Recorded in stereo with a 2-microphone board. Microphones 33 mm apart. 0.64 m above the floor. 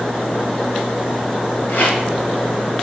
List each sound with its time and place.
1.7 s a rattle: 80° left, 1.9 m